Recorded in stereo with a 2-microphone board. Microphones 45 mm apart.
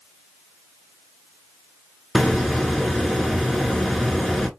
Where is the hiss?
5° left (ahead or behind), 0.8 m.